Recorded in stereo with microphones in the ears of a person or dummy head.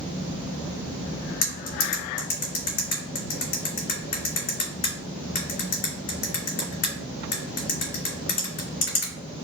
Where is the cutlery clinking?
45° left (ahead or behind), 2 m.